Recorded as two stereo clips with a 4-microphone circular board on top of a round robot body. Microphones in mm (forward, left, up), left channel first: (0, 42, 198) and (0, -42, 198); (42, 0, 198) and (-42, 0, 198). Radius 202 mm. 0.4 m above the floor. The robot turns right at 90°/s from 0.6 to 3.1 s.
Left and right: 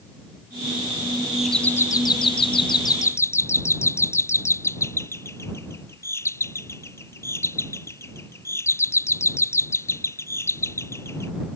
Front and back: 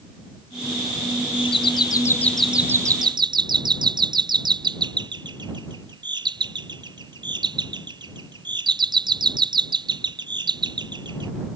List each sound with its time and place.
1.3 s a doorbell: 10° right; by 11.3 s 150° left